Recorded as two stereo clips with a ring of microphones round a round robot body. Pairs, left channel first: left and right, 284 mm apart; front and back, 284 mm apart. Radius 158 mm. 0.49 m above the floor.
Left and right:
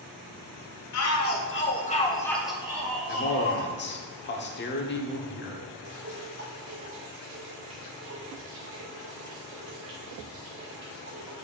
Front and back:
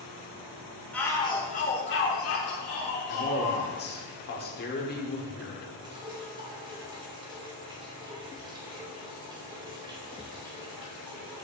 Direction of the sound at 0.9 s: 85° left.